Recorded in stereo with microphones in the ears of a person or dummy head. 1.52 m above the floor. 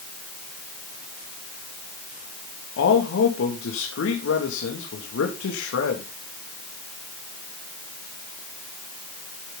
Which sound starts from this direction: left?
A man speaking, at 2.8 s.